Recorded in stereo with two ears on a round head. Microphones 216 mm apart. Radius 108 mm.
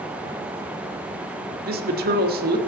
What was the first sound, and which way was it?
A woman speaking, 40° right (ahead or behind).